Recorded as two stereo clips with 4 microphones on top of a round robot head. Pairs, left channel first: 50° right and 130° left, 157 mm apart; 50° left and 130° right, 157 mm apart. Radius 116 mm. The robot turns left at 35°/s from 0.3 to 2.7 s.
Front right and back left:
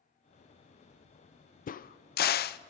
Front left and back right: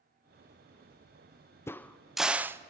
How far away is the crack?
About 0.5 m.